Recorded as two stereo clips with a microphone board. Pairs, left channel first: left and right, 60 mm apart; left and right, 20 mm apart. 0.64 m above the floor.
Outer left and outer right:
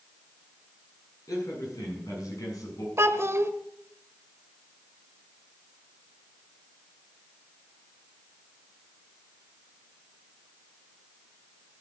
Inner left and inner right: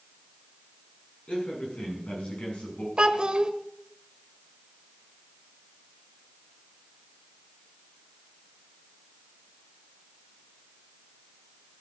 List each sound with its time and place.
1.3 s a man speaking: 80° left, 7 m
3.0 s a child speaking: 50° right (ahead or behind), 1.2 m